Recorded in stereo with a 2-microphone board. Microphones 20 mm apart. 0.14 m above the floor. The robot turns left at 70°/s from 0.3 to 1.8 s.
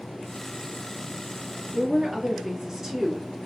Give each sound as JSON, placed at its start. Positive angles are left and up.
{"t": 1.7, "sound": "a woman speaking", "side_deg": -20, "distance_m": 1.8}